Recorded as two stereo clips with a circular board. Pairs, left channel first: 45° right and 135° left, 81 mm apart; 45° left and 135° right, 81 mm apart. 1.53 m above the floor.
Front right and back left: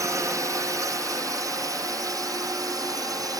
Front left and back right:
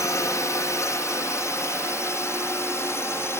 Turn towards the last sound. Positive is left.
turn(degrees=100)